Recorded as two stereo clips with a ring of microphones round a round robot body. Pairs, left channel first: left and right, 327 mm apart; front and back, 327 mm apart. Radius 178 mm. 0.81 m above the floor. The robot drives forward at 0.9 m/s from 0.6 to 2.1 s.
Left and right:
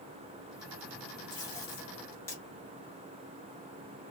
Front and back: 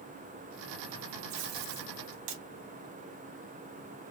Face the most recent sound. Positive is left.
turn(degrees=175)